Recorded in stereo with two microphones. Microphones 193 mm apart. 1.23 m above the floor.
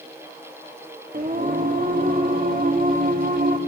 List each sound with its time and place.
1.1 s singing: 50° right (ahead or behind), 1.7 m